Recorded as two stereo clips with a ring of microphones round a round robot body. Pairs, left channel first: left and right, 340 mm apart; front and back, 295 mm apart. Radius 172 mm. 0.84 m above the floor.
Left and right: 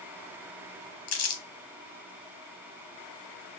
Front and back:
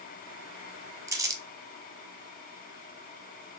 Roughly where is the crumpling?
Left.